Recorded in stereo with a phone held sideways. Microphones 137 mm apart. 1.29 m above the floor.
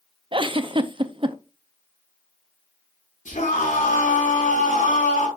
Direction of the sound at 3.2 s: 75° left (ahead or behind).